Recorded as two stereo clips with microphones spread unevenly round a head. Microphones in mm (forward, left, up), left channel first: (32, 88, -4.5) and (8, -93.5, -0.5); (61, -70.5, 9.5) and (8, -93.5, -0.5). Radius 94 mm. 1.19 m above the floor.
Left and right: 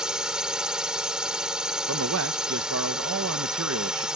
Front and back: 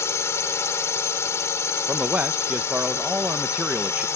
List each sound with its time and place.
0.0 s a drone: 10° right
1.9 s a man speaking: 95° right